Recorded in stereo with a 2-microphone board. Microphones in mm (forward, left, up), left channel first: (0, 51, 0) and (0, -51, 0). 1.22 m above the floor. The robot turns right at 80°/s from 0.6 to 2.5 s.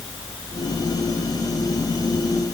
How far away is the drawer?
I don't hear a drawer.